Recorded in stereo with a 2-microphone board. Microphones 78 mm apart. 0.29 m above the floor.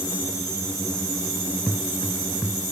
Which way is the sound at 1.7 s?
10° right (ahead or behind).